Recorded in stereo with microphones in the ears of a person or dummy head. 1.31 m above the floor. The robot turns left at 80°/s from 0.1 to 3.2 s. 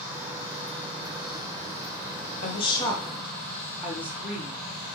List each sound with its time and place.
2.4 s a woman speaking: 55° left, 0.6 m; by 4.6 s 10° right, 0.6 m